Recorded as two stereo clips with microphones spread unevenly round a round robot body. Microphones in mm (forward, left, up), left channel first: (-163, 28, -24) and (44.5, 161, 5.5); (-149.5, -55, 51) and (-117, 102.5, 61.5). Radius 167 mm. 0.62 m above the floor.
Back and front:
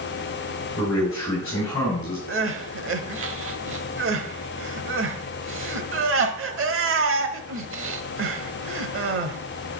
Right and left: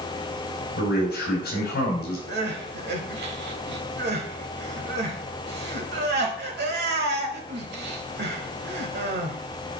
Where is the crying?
65° left, 1.1 m.